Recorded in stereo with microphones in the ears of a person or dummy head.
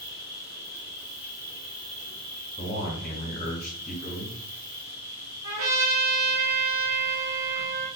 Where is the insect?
40° right (ahead or behind), 1.1 m.